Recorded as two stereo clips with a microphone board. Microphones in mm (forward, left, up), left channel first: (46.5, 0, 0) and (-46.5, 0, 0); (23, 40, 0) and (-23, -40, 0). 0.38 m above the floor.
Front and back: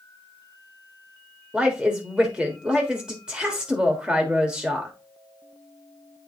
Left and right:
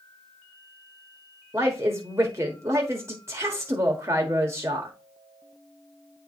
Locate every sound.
1.5 s a woman speaking: 110° right, 1.2 m